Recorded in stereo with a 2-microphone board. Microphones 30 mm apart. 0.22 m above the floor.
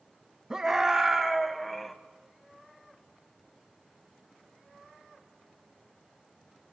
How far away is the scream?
About 1.6 m.